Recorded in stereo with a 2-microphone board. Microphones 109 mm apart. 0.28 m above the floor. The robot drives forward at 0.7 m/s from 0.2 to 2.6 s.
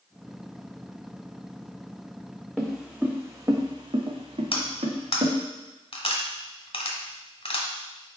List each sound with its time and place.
2.6 s footsteps: centre (ahead or behind), 1.1 m; by 5.3 s 75° right (ahead or behind), 1.6 m
4.5 s cutlery clinking: 60° left (ahead or behind), 1.1 m